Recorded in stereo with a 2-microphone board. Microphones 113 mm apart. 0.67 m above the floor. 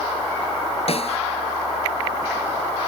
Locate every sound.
0.9 s a snare drum: 60° left (ahead or behind)